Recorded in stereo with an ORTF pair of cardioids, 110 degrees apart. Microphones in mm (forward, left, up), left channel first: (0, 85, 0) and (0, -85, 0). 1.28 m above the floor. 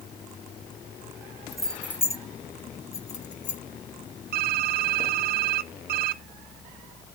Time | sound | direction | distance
1.5 | keys jangling | straight ahead | 1.0 m
4.3 | typing on a keyboard | 60° right | 0.7 m